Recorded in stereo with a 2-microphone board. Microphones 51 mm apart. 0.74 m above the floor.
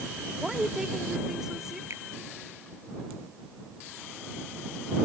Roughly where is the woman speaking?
Centre.